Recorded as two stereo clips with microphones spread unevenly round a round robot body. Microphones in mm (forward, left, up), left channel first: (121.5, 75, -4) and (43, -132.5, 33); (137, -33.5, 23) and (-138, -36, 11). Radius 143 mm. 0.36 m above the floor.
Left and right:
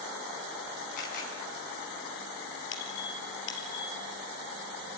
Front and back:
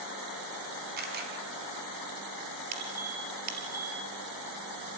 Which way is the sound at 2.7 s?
120° left.